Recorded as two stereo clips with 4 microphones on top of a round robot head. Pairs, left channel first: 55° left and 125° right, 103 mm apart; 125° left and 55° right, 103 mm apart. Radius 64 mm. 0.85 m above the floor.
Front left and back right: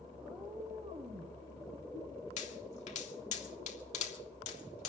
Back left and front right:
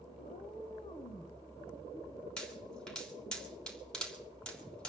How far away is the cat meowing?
About 1.2 m.